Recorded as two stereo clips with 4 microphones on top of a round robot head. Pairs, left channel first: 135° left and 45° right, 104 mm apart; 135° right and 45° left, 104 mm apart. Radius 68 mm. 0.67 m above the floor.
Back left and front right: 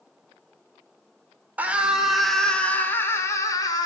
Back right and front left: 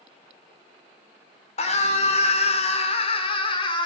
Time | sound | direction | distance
1.6 | a scream | 120° right | 2 m